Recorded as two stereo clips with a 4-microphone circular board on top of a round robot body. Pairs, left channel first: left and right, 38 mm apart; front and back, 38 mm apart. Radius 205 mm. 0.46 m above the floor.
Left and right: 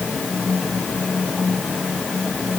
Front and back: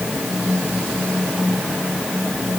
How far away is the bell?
No bell in this recording.